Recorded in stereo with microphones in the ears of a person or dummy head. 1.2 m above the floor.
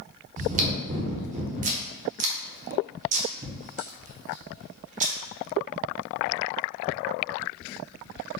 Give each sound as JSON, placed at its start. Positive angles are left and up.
{"t": 0.4, "sound": "chewing", "side_deg": -35, "distance_m": 0.8}